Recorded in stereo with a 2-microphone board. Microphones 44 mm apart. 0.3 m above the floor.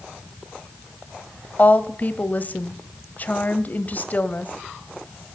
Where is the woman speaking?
40° left (ahead or behind), 1.2 m.